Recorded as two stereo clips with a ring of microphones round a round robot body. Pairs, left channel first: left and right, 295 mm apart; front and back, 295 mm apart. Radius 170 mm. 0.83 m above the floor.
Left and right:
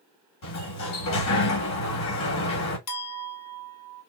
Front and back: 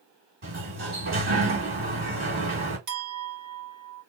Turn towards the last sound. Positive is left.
turn(degrees=130)